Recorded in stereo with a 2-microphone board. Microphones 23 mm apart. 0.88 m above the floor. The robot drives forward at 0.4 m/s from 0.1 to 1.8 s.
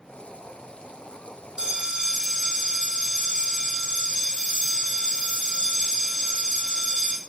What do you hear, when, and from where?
1.6 s a bell: 40° right (ahead or behind), 0.7 m